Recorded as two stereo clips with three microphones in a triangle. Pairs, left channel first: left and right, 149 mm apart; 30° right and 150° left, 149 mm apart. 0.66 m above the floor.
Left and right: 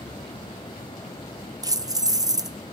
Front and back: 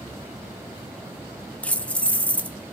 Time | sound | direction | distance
1.6 | keys jangling | 100° right | 0.6 m